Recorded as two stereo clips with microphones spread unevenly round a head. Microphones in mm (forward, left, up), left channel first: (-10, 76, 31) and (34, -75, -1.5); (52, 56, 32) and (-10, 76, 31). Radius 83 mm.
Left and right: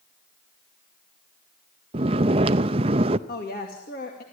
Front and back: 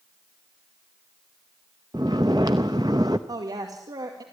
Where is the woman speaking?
145° left, 2.5 m.